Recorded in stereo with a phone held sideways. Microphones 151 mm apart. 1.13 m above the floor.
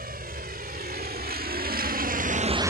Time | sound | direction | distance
0.0 | a vehicle | 85° right | ?